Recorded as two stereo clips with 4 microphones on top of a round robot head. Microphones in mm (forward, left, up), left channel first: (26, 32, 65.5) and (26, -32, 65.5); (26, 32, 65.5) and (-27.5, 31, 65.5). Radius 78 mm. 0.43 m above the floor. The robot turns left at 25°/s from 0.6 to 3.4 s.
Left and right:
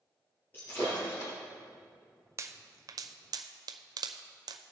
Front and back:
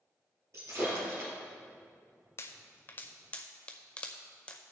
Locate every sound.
0.5 s breaking glass: 150° left, 4 m; by 1.3 s 135° left, 4 m
2.4 s a pop: 45° right, 0.5 m; by 4.7 s 70° right, 0.5 m